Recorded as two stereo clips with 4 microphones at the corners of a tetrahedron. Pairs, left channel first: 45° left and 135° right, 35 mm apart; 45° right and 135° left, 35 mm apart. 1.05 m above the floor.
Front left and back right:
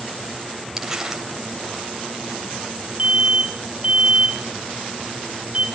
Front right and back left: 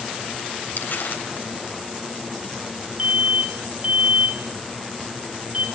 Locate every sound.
0.8 s crumpling: 55° right, 3.5 m
3.0 s an alarm: straight behind, 2.5 m